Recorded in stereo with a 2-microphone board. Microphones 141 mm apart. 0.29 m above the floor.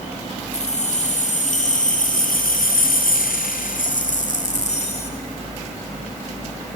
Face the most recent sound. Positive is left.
turn(degrees=45)  # may be behind; listen again after turning